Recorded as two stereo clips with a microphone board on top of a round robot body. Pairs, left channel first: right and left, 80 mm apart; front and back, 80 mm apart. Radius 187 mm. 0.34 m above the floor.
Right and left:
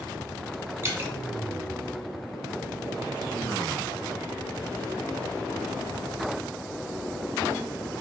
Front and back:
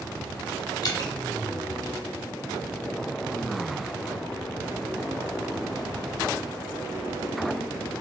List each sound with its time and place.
0.8 s dripping: 30° left, 0.7 m